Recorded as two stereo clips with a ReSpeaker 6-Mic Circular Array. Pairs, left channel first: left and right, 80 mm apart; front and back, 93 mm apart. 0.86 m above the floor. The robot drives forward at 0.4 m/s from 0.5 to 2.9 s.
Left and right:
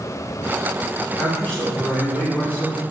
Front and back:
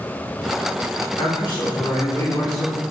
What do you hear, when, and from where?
1.2 s a man speaking: 15° left, 1.6 m; by 2.8 s 30° left, 1.1 m